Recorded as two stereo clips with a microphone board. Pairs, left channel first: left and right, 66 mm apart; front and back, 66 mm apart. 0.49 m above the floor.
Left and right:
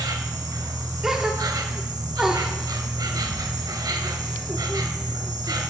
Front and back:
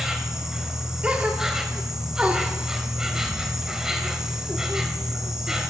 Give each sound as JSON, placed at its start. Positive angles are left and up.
{"t": 0.0, "sound": "an insect", "azimuth_deg": -100, "distance_m": 0.7}
{"t": 1.0, "sound": "a gasp", "azimuth_deg": -155, "distance_m": 0.9}